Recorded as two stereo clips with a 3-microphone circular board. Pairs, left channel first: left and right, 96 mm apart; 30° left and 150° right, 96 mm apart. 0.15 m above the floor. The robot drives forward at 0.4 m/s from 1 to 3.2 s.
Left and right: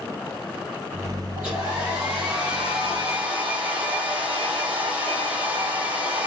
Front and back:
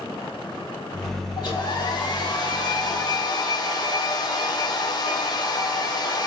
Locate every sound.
1.4 s a hair dryer: 10° right, 2.5 m; by 6.3 s 15° right, 1.6 m